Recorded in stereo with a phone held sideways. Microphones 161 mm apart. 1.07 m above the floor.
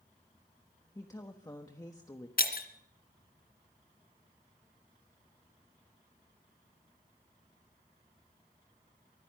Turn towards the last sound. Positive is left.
turn(degrees=65)  # may be behind; listen again after turning